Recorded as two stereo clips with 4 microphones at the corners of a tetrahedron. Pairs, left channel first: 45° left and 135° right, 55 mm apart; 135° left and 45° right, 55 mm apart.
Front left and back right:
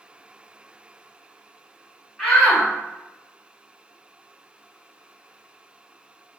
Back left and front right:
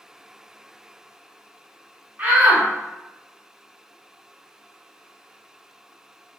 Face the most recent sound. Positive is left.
turn(degrees=-30)